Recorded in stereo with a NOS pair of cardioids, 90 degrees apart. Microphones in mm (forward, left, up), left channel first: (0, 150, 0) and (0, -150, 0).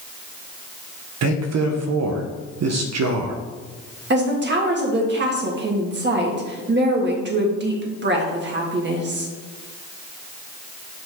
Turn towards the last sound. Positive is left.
turn(degrees=-35)